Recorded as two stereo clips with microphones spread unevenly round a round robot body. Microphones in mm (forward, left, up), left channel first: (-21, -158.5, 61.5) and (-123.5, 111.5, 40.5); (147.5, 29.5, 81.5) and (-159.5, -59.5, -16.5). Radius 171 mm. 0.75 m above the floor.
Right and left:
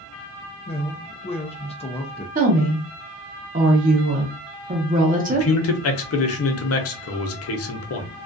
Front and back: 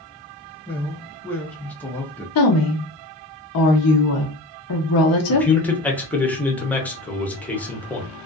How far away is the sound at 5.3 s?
About 0.7 m.